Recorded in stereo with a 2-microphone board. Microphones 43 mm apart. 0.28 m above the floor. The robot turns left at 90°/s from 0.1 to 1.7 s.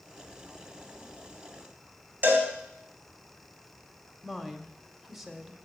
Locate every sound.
2.2 s a cowbell: 50° right (ahead or behind), 2.5 m
4.2 s a woman speaking: 5° right (ahead or behind), 1.1 m